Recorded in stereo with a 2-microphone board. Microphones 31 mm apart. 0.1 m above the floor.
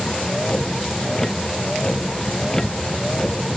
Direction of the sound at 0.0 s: 15° left (ahead or behind).